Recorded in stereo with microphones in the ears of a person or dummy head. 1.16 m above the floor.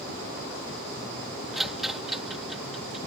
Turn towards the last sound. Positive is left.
turn(degrees=0)  # may be behind; listen again after turning